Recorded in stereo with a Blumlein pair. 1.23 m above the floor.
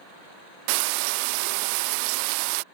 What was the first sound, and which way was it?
Frying, 45° right.